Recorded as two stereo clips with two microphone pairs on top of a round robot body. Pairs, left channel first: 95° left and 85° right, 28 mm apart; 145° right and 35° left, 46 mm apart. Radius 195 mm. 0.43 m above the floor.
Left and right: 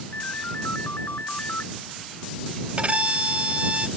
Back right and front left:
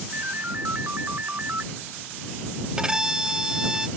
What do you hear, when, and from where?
0.1 s a ringtone: 85° left
2.8 s a violin: 40° right